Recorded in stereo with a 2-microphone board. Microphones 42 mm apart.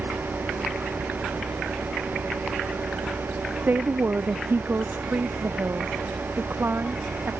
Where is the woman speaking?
45° right (ahead or behind); by 7.3 s 60° right (ahead or behind).